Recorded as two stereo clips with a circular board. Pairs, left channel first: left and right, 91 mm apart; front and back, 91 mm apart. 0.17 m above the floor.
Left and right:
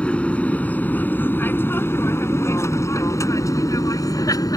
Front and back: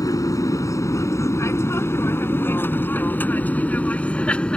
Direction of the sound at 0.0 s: 20° left.